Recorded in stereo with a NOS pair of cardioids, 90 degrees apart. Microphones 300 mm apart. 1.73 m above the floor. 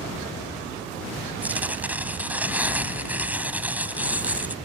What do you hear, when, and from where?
1.4 s tearing paper: 5° right